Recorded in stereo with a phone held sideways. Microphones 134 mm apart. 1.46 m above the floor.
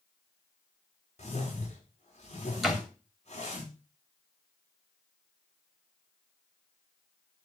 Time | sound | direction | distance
1.2 | a whoosh | 55° left (ahead or behind) | 4.5 m
2.6 | a door slam | centre (ahead or behind) | 3 m